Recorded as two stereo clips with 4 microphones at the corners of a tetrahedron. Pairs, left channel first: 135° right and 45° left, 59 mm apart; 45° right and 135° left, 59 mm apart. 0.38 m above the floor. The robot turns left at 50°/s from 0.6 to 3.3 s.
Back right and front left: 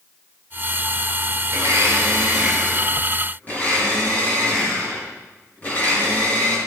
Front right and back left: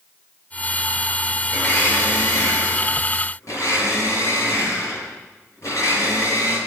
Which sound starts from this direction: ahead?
A blender, at 1.5 s.